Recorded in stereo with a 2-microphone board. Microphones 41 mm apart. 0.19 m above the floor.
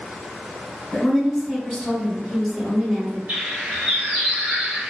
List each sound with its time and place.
0.9 s a woman speaking: 15° left (ahead or behind), 1.6 m; by 3.2 s 15° right (ahead or behind), 1.6 m
3.3 s a bird: 40° right (ahead or behind), 1.4 m